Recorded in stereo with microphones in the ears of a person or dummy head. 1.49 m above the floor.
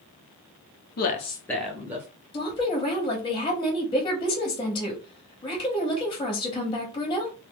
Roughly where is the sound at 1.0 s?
Left.